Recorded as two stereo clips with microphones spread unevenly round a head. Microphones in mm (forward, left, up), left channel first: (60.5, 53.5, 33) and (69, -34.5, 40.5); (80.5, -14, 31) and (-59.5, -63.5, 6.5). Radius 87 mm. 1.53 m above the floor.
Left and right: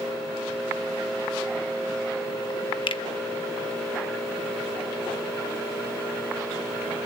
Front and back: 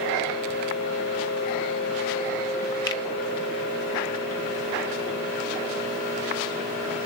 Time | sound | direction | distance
2.9 | a finger snap | 80° left | 1.0 m